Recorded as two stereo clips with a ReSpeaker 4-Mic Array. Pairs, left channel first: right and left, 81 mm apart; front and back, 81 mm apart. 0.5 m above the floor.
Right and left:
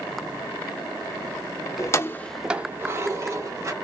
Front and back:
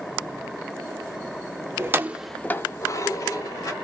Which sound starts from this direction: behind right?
Keys jangling, at 1.8 s.